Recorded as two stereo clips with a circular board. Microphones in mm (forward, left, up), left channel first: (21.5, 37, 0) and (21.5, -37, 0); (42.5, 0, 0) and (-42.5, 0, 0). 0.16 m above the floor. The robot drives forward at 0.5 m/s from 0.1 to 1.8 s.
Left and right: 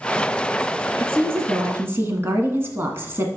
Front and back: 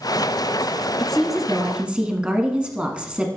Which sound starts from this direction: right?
A woman speaking, at 1.0 s.